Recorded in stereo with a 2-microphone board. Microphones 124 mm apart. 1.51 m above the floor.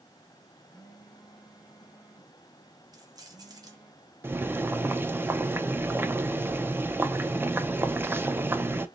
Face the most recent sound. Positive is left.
turn(degrees=-15)  # may be behind; listen again after turning